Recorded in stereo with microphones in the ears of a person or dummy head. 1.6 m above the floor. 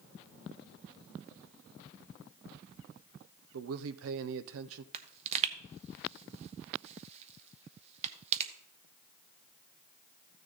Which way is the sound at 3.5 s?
70° right (ahead or behind).